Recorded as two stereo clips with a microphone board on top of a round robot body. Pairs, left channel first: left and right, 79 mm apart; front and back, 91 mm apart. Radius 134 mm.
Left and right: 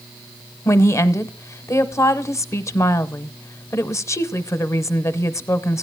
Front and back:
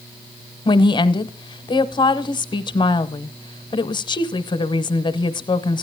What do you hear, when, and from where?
0.7 s a woman speaking: 35° left, 0.9 m